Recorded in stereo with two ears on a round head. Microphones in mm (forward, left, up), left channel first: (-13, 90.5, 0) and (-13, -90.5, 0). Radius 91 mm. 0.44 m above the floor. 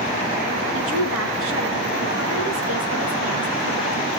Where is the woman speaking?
70° right (ahead or behind), 5 m.